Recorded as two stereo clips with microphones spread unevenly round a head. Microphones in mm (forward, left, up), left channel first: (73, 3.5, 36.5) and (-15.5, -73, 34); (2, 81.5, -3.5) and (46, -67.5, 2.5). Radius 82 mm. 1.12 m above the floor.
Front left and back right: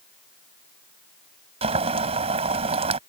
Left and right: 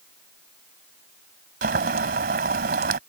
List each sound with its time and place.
1.6 s boiling: 105° right